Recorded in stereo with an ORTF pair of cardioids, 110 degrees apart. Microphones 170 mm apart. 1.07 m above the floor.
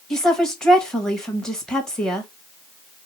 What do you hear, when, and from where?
0.1 s a woman speaking: 5° left, 1.3 m